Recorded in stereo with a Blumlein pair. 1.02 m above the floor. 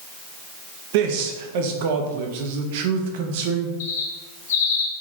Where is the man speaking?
50° right, 0.8 m.